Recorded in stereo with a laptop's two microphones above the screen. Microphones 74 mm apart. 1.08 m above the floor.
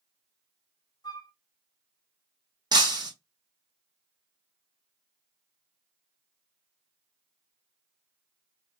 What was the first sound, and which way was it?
A flute, 55° left (ahead or behind).